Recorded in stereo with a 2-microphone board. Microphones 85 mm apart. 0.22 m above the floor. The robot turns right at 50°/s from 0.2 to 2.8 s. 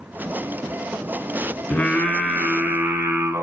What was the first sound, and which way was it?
Singing, 150° left.